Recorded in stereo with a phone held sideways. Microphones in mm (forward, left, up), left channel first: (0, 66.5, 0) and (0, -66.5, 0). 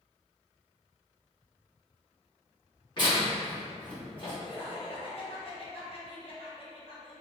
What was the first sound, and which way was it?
Tearing paper, 35° left (ahead or behind).